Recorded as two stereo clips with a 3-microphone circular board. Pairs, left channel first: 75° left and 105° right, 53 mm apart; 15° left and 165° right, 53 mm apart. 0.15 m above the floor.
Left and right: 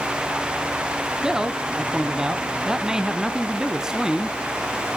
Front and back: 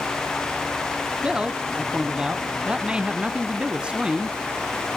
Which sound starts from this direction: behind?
A man speaking, at 1.2 s.